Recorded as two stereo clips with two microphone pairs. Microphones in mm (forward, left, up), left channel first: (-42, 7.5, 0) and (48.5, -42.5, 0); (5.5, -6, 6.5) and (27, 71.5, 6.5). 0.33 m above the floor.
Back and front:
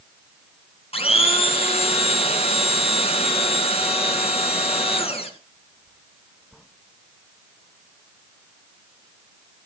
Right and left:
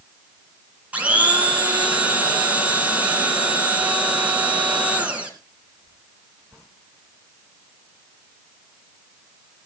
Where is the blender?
145° left, 3 m.